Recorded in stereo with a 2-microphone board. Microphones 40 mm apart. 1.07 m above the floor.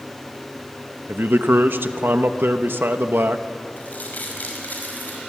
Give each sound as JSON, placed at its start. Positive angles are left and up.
{"t": 1.1, "sound": "a man speaking", "side_deg": -75, "distance_m": 1.1}
{"t": 3.8, "sound": "crumpling", "side_deg": 55, "distance_m": 5.5}